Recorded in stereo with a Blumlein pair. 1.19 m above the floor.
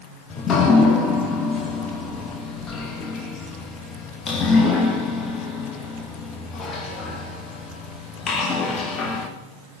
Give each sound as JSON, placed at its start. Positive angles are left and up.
{"t": 0.3, "sound": "dripping", "azimuth_deg": 25, "distance_m": 0.8}